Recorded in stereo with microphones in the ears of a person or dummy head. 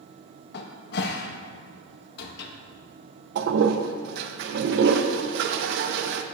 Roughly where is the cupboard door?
Left.